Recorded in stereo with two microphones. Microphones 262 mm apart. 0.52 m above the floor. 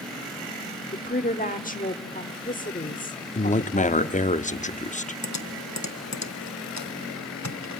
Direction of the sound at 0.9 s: 30° left (ahead or behind).